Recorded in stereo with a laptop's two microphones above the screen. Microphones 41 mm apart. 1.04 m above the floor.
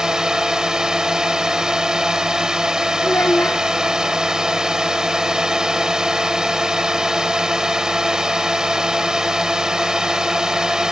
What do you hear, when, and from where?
0.0 s a drone: 15° right (ahead or behind)
3.0 s a child speaking: 70° left (ahead or behind)